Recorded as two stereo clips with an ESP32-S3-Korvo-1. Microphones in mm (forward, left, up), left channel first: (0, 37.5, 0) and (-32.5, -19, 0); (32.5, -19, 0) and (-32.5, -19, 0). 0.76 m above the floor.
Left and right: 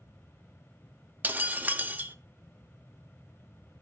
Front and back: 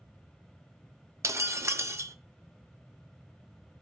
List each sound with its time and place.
1.2 s breaking glass: 170° right, 0.5 m